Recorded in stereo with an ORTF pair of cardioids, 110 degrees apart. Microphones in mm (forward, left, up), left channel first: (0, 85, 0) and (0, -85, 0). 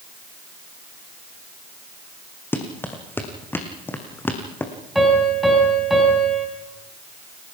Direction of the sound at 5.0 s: Straight ahead.